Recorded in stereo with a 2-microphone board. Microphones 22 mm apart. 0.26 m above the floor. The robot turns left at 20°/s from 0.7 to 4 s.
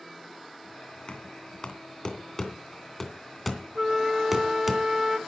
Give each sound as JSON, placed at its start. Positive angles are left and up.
{"t": 1.1, "sound": "knocking", "side_deg": 45, "distance_m": 2.5}
{"t": 3.8, "sound": "a flute", "side_deg": -20, "distance_m": 0.9}